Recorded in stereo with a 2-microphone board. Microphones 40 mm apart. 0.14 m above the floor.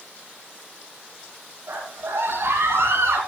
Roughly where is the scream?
Right.